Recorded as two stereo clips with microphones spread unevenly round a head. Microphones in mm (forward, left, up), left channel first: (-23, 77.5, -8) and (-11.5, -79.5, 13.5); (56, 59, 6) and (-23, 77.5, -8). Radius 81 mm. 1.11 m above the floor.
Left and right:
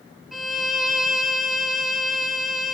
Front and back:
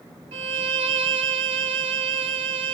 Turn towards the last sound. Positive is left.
turn(degrees=-170)